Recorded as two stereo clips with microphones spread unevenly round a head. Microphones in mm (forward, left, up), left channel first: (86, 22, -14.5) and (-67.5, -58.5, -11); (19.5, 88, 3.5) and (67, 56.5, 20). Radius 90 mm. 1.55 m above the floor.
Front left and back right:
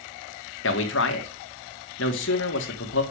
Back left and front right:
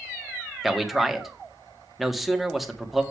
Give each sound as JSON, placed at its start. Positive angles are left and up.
{"t": 0.6, "sound": "a man speaking", "azimuth_deg": 55, "distance_m": 2.0}